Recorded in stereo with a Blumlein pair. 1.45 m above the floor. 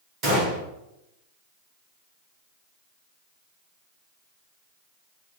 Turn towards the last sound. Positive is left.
turn(degrees=-35)